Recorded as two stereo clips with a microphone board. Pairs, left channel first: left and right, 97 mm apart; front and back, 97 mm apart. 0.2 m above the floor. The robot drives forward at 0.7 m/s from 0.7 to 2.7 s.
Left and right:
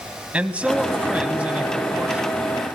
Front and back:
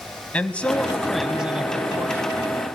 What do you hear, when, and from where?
0.3 s a man speaking: 45° right, 1.4 m; by 2.4 s 160° right, 1.6 m